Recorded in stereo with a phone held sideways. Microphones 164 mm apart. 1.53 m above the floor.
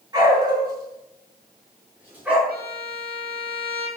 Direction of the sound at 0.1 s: 25° right (ahead or behind).